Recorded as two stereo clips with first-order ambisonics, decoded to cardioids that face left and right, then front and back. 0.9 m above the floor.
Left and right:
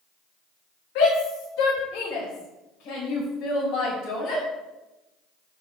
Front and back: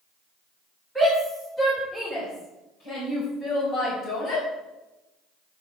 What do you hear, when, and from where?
0.9 s a shout: 90° left, 3 m; by 4.4 s 45° left, 5.5 m